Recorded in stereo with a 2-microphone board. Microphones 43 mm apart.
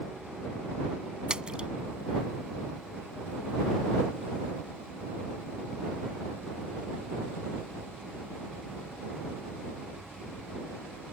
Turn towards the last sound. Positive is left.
turn(degrees=-20)  # may be behind; listen again after turning